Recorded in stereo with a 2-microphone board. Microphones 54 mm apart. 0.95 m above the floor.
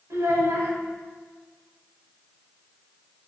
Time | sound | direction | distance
0.1 | a child speaking | 85° right | 2 m